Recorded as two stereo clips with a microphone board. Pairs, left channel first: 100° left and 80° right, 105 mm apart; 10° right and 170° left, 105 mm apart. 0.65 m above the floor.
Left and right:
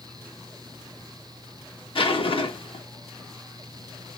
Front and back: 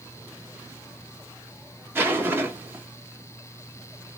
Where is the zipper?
105° left, 0.9 m.